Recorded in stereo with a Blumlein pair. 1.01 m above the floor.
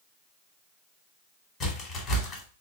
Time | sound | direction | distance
1.6 | a crack | 20° left | 1.3 m